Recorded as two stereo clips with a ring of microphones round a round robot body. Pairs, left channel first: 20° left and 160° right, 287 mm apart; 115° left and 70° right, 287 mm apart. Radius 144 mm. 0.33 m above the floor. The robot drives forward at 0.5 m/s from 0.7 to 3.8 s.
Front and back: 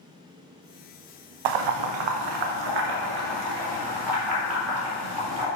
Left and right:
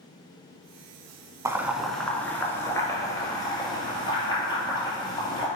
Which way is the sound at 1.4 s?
150° right.